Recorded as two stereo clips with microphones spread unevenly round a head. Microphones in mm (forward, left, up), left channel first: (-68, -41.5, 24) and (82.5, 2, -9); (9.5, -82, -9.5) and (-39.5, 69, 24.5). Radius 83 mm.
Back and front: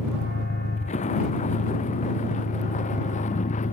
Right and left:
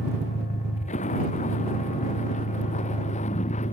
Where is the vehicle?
120° right.